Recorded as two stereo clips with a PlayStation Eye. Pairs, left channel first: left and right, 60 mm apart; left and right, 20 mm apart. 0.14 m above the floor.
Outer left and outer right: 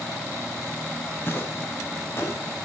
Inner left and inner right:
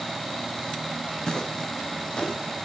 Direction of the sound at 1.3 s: 40° left (ahead or behind).